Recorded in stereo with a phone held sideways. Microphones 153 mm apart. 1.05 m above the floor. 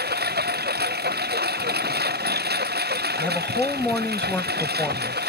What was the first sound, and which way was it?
A lawn mower, 85° right.